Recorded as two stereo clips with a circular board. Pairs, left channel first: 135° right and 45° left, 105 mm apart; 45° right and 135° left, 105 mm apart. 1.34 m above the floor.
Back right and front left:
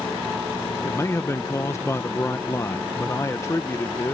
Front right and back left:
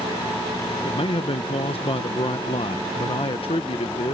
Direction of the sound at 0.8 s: 70° right.